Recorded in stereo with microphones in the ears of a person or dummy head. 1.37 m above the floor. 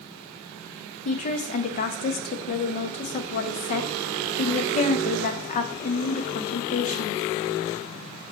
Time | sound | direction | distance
1.1 | a woman speaking | 40° left (ahead or behind) | 0.5 m